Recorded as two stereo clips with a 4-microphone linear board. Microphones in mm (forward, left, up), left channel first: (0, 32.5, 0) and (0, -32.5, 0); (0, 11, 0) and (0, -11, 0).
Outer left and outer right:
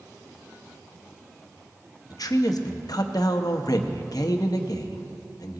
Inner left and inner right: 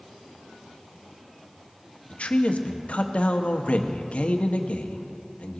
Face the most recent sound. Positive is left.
turn(degrees=75)  # may be behind; listen again after turning